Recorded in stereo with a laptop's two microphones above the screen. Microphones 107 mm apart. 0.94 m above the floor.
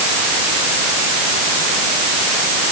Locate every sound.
Only background noise.